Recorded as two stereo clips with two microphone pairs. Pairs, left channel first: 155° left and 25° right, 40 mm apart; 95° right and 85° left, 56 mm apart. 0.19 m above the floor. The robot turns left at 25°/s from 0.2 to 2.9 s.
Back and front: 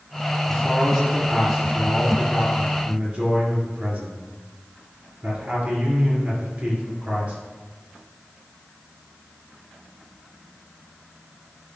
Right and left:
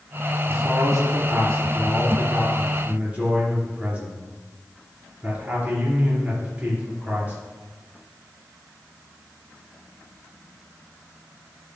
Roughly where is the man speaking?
Left.